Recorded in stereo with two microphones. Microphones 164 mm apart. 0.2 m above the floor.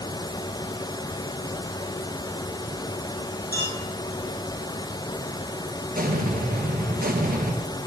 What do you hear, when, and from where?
1.4 s crumpling: 15° left (ahead or behind), 3 m
3.5 s a clink: 75° left (ahead or behind), 3.5 m
6.0 s an explosion: 65° right (ahead or behind), 1.6 m